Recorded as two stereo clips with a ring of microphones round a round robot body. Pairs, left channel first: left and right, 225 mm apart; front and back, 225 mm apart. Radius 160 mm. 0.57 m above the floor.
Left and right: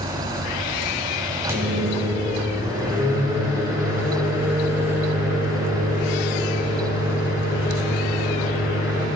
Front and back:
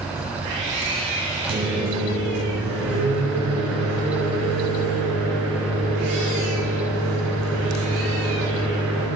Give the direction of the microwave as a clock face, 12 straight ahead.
6 o'clock.